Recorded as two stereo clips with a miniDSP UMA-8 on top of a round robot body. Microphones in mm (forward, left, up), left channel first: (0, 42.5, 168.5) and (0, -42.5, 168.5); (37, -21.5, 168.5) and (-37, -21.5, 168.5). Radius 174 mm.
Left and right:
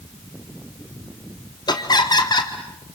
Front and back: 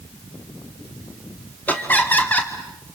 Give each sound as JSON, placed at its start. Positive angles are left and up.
{"t": 1.7, "sound": "laughter", "azimuth_deg": 65, "distance_m": 1.8}